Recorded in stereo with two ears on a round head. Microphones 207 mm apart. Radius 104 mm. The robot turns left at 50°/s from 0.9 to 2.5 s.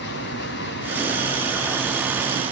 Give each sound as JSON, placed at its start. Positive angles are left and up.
{"t": 0.0, "sound": "running water", "azimuth_deg": 50, "distance_m": 2.0}